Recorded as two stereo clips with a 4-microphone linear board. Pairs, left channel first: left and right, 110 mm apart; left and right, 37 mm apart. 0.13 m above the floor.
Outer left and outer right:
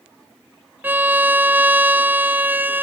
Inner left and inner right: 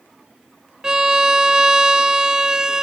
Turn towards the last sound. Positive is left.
turn(degrees=-15)  # may be behind; listen again after turning